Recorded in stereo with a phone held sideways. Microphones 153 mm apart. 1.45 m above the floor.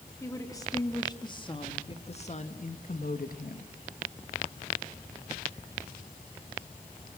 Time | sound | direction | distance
0.2 | a woman speaking | 20° left (ahead or behind) | 3 m